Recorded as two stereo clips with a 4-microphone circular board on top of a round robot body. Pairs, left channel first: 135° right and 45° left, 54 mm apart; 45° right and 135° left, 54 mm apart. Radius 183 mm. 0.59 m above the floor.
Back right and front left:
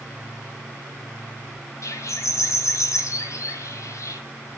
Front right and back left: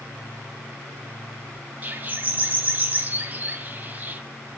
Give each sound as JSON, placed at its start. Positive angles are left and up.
{"t": 1.8, "sound": "a bird", "azimuth_deg": -165, "distance_m": 2.0}